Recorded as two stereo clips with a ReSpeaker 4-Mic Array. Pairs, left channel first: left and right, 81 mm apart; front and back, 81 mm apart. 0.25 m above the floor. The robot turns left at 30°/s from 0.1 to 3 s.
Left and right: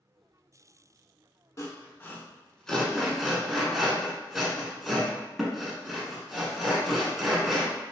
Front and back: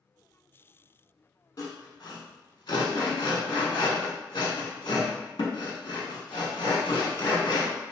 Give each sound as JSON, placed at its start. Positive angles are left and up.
{"t": 1.6, "sound": "sawing", "azimuth_deg": 40, "distance_m": 0.7}